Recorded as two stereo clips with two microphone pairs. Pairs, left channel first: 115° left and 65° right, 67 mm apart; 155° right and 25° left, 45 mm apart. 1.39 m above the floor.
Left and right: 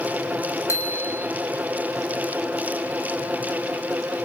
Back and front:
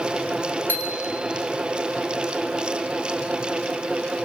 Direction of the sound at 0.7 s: 165° left.